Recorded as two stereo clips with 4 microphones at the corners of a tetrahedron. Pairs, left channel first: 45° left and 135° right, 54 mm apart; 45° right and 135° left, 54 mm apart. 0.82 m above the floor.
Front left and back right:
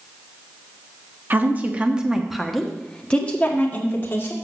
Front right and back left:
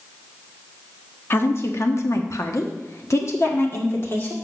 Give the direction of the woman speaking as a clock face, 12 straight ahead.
3 o'clock.